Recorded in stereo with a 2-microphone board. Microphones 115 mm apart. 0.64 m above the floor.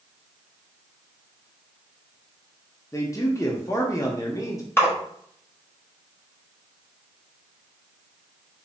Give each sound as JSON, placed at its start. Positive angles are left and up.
{"t": 2.9, "sound": "a man speaking", "side_deg": 30, "distance_m": 0.6}
{"t": 4.8, "sound": "a splash", "side_deg": 20, "distance_m": 1.2}